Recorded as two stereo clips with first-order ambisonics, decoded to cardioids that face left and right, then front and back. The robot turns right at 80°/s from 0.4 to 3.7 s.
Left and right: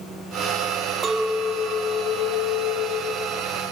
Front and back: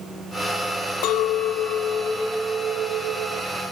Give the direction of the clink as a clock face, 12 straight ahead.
1 o'clock.